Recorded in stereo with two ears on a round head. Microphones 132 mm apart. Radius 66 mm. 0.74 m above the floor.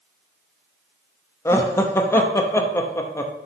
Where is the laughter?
20° left (ahead or behind), 0.8 m.